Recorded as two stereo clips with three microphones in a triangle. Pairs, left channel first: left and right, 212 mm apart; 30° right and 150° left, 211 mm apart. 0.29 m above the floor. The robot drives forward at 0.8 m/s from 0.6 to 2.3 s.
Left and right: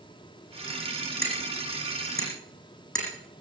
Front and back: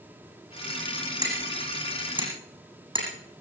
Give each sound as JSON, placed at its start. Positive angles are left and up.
{"t": 1.2, "sound": "hammering", "azimuth_deg": 80, "distance_m": 8.5}